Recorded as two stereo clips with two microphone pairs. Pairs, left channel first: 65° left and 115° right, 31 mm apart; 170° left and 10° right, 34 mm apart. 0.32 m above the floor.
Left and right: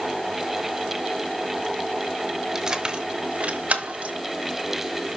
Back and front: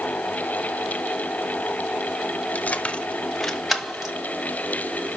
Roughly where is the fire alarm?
No fire alarm in this recording.